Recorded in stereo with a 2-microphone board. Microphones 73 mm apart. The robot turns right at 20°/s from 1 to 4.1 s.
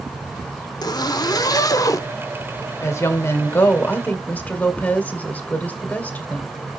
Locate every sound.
0.8 s a zipper: 65° left (ahead or behind), 0.6 m; by 2.1 s 50° left (ahead or behind), 0.6 m
2.8 s a woman speaking: 40° left (ahead or behind), 1.8 m; by 6.5 s 20° left (ahead or behind), 1.8 m